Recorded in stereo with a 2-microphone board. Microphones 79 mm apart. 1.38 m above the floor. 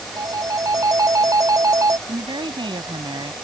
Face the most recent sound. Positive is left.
turn(degrees=-85)